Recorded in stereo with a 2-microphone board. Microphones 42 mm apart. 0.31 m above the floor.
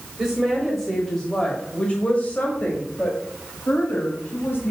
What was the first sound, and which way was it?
A woman speaking, 15° right (ahead or behind).